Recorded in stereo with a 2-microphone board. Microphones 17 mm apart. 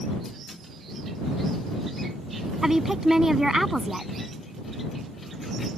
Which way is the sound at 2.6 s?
25° right (ahead or behind).